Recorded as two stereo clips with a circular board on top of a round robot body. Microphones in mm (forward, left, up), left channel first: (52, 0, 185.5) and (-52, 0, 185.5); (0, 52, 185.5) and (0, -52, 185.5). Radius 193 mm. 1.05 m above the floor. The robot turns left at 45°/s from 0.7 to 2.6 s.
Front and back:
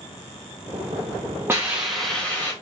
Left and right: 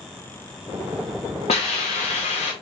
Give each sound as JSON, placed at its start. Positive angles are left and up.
{"t": 1.5, "sound": "a hiss", "azimuth_deg": 110, "distance_m": 0.7}